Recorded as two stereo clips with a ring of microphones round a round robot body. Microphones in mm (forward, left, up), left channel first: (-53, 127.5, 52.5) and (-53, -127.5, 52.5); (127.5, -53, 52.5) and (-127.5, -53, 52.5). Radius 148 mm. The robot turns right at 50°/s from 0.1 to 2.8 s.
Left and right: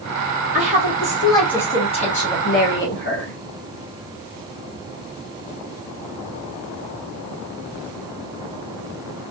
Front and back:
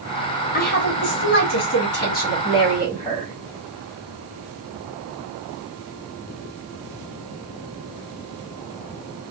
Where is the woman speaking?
40° right, 1.4 m; by 3.4 s 70° left, 1.4 m.